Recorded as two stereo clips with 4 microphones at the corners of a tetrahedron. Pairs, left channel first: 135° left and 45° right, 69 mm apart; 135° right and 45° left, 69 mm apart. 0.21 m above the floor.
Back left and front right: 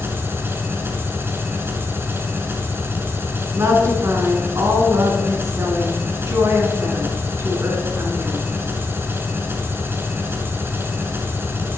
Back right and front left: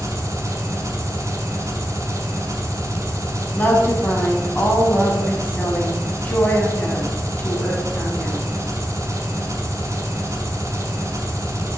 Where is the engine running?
5° left, 0.9 m.